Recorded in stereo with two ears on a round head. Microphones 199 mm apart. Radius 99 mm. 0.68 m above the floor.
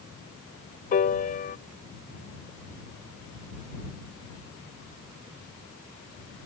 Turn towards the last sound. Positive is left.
turn(degrees=40)  # may be behind; listen again after turning